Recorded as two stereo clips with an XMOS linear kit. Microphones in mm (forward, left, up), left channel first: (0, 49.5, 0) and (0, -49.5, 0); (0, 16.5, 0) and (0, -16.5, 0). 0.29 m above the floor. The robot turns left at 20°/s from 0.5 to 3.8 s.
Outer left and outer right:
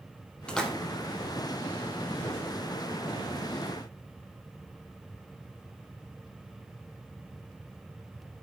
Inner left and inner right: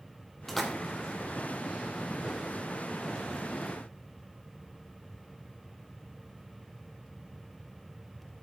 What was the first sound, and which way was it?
A splash, 10° left (ahead or behind).